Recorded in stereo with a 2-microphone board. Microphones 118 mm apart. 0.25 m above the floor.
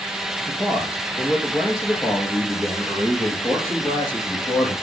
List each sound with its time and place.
0.5 s a man speaking: 30° left (ahead or behind), 4 m; by 4.7 s 10° left (ahead or behind), 5.5 m